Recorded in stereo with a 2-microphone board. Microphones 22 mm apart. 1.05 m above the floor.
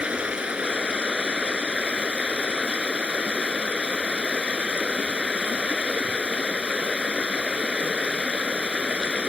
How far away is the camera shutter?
No camera shutter in this recording.